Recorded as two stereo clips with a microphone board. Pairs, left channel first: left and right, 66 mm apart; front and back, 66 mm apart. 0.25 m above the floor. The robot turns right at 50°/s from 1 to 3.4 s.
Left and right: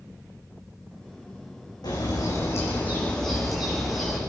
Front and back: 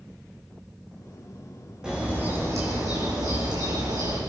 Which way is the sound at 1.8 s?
100° left.